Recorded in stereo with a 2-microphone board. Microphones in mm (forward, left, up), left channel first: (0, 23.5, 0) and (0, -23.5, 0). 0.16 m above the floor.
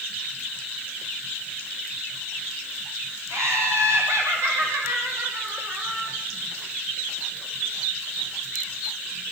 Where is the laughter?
75° right (ahead or behind), 6.5 m; by 6.2 s 80° right, 5.5 m.